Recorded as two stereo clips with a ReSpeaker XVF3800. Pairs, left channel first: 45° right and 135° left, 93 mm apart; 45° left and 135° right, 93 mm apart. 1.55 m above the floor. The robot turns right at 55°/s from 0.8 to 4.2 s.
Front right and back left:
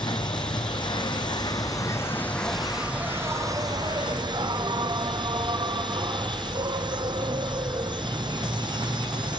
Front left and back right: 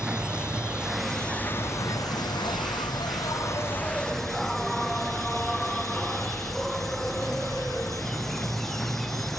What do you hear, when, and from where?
0.0 s an insect: 55° right, 0.7 m; by 9.4 s 130° left, 0.7 m